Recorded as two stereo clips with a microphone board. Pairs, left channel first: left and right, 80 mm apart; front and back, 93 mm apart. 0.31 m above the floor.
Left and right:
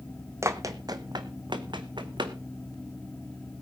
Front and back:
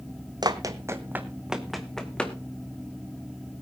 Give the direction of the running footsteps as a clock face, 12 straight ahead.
5 o'clock.